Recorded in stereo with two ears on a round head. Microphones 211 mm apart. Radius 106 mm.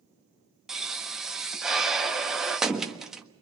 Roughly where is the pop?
Centre.